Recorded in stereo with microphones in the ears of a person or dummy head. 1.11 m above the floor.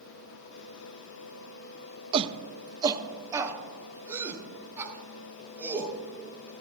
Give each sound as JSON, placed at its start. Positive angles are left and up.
{"t": 2.1, "sound": "a shout", "side_deg": -35, "distance_m": 0.9}